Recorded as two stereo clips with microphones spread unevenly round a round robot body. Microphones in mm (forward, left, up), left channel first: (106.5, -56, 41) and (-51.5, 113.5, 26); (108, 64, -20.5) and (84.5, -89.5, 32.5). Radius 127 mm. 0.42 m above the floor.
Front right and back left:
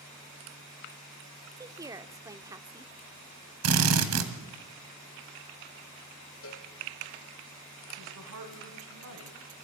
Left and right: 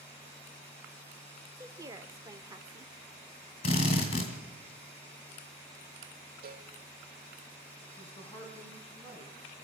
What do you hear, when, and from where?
1.6 s a woman speaking: 170° left, 0.8 m
3.6 s a drill: 140° left, 1.9 m
6.4 s a cowbell: 90° right, 2.5 m
8.0 s a woman speaking: 160° left, 3.5 m